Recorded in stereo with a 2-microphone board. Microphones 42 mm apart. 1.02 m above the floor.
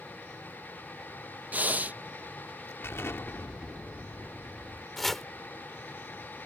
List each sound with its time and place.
1.5 s breathing: 40° right (ahead or behind)
2.8 s an explosion: 70° left (ahead or behind)
5.0 s chopping: 5° left (ahead or behind)